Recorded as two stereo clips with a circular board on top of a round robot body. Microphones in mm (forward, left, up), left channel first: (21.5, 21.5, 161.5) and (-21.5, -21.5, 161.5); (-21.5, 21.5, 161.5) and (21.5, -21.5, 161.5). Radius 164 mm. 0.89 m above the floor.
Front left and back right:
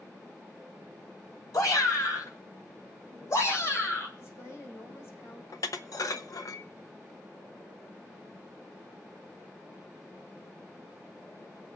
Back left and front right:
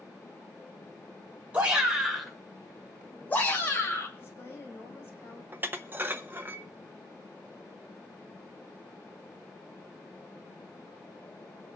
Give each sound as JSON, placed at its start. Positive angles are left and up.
{"t": 1.5, "sound": "a shout", "azimuth_deg": 25, "distance_m": 3.0}
{"t": 4.2, "sound": "a woman speaking", "azimuth_deg": 85, "distance_m": 5.0}
{"t": 5.5, "sound": "dishes clattering", "azimuth_deg": 15, "distance_m": 0.7}